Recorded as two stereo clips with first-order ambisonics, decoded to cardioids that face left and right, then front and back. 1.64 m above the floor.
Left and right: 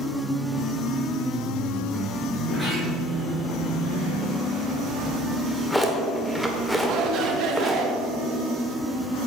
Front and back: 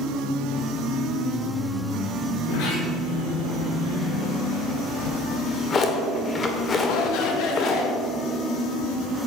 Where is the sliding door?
5° left, 5 m.